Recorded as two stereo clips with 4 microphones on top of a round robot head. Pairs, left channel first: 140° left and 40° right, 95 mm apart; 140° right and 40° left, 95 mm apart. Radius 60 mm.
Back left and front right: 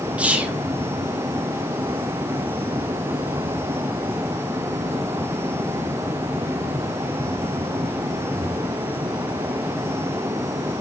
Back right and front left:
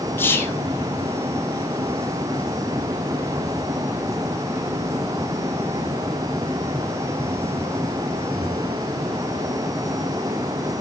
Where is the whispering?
100° right, 0.6 m.